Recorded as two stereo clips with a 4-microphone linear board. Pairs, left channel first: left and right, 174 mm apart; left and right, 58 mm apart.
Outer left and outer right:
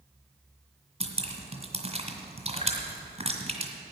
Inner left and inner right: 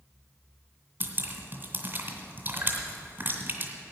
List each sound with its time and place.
1.0 s dripping: 40° right (ahead or behind), 2.0 m